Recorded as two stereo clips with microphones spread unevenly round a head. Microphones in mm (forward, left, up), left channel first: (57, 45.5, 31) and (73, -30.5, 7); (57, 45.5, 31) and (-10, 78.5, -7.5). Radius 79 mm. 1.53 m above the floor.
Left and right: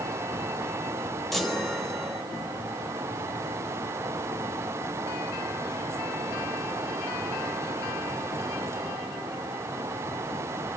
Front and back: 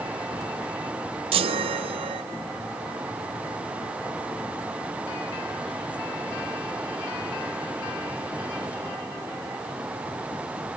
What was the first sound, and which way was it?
A chime, 170° left.